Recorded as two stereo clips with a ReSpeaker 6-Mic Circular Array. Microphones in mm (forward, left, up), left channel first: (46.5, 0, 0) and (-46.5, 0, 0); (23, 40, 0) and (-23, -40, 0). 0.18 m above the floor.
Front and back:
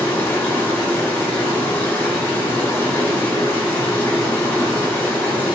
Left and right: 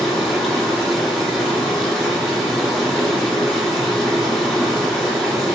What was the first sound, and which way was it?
Running water, 30° right.